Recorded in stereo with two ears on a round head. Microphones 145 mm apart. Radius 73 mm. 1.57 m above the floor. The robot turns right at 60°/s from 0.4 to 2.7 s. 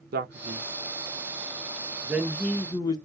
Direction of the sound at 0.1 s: 60° right (ahead or behind).